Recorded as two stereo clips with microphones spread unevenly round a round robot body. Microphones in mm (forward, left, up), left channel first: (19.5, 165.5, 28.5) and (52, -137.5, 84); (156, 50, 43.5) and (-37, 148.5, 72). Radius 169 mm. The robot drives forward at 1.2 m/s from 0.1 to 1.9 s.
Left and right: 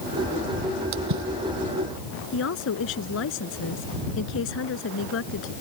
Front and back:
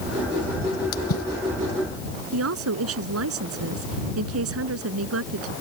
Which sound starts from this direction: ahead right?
A splash, at 0.9 s.